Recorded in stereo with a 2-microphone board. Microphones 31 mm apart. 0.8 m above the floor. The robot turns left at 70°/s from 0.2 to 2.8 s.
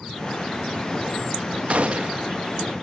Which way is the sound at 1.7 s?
80° right.